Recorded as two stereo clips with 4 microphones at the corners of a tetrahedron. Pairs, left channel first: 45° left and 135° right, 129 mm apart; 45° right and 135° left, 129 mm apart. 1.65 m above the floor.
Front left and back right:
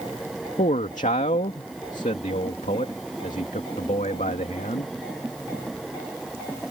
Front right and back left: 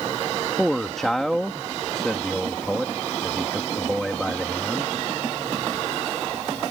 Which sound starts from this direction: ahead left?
A man speaking, at 0.6 s.